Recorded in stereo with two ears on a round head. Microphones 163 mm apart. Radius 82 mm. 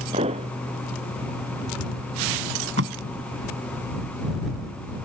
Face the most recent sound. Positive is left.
turn(degrees=-70)  # may be behind; listen again after turning